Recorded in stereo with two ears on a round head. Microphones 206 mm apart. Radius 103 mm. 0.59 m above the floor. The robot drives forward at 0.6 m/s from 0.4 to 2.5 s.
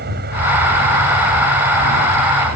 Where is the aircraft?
45° right (ahead or behind); by 2.6 s 40° right (ahead or behind).